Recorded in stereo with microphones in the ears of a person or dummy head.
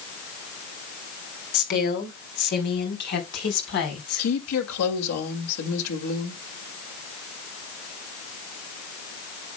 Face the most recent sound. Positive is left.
turn(degrees=85)